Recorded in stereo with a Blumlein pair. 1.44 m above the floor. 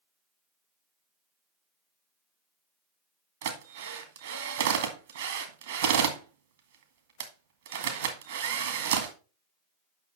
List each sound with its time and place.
3.4 s a drill: 60° right, 1.9 m